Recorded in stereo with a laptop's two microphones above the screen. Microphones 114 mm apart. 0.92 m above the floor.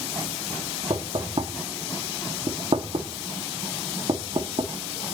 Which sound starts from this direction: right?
Knocking, at 0.9 s.